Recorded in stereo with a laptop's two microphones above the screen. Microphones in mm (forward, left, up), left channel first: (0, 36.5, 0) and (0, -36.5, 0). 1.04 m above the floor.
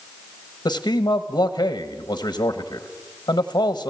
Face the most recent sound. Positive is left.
turn(degrees=70)  # may be behind; listen again after turning